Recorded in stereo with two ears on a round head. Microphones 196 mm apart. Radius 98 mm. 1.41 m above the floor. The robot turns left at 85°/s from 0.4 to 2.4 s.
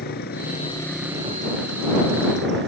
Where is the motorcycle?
50° left; by 2.7 s 120° right.